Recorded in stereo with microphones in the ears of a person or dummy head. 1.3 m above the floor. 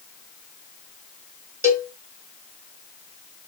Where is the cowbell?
15° right (ahead or behind), 2.5 m.